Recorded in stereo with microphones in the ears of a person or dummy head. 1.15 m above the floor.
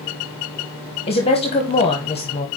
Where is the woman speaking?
30° left (ahead or behind), 0.8 m.